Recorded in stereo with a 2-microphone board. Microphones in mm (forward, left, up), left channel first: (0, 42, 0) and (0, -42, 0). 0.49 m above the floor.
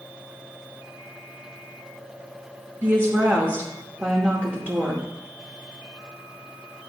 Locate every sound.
2.8 s a woman speaking: 25° right (ahead or behind), 0.9 m